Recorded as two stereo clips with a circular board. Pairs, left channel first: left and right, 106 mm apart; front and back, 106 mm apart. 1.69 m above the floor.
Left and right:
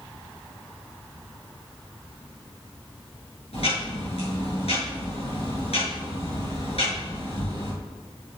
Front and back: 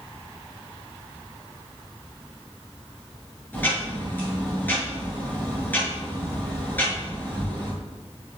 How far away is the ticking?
About 6.5 m.